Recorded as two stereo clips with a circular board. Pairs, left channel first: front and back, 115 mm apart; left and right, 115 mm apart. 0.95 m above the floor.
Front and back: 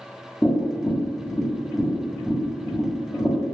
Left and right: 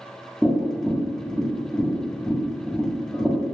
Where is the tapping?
15° left, 0.8 m.